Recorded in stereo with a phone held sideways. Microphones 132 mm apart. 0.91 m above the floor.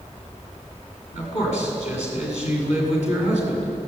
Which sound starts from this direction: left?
A man speaking, at 1.1 s.